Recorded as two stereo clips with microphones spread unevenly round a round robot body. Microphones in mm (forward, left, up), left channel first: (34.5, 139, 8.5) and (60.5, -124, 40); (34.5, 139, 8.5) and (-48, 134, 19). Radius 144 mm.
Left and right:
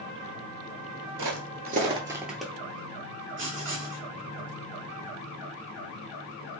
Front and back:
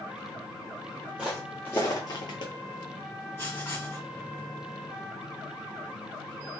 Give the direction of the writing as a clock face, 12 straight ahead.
2 o'clock.